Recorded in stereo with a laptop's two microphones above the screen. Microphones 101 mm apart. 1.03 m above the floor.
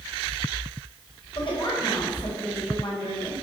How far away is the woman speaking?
About 4 m.